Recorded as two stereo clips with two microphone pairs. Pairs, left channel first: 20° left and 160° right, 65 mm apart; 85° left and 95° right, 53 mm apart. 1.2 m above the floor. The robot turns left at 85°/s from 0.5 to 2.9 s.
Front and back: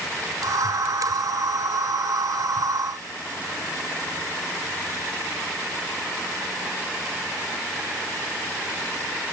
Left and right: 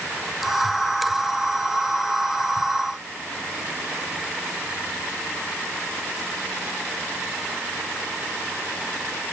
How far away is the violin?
I don't hear a violin.